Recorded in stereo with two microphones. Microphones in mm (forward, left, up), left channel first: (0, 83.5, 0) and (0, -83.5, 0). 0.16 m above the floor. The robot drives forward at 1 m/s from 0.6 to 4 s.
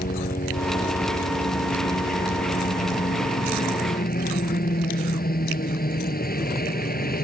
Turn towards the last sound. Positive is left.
turn(degrees=65)  # may be behind; listen again after turning